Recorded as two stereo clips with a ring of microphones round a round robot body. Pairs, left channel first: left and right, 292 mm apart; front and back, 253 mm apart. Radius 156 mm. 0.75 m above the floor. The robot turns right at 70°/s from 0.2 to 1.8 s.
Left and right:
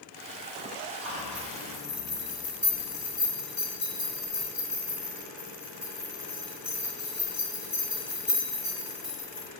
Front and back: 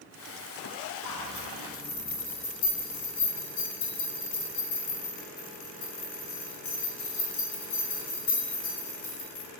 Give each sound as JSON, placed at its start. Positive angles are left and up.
{"t": 1.1, "sound": "a zipper", "azimuth_deg": -55, "distance_m": 0.8}